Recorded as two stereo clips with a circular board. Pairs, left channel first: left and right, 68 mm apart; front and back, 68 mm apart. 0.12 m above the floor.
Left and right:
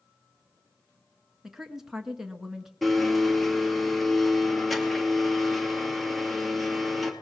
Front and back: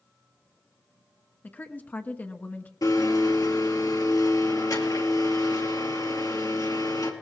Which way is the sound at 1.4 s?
10° right.